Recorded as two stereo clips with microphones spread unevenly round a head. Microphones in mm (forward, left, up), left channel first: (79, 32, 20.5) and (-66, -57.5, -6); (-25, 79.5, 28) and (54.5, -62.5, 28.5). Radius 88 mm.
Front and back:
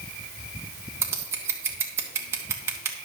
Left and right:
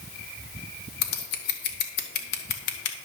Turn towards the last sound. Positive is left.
turn(degrees=135)